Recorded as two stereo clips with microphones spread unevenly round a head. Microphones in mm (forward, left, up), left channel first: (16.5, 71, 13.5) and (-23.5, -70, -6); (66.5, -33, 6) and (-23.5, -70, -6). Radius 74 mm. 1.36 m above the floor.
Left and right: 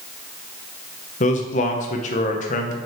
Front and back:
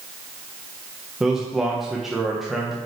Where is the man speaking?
115° left, 1.0 m.